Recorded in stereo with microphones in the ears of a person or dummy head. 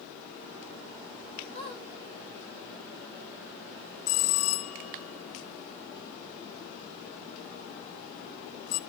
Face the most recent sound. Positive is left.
turn(degrees=70)  # may be behind; listen again after turning